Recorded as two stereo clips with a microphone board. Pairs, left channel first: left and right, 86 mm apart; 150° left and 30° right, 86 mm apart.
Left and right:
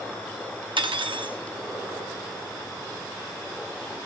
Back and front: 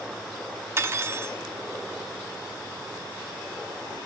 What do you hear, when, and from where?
0.8 s cutlery clinking: 90° right, 0.9 m